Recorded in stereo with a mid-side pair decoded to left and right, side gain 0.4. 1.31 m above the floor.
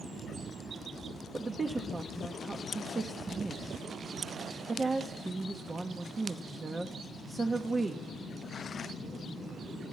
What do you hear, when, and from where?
1.3 s a woman speaking: 30° right, 0.6 m